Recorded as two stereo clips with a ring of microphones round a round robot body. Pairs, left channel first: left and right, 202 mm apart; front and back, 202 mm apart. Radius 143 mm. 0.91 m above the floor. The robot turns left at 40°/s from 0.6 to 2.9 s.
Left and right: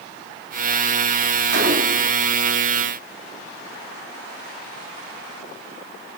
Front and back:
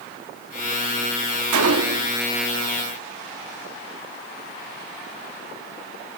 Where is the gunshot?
145° right, 0.8 m; by 2.2 s 170° right, 0.8 m.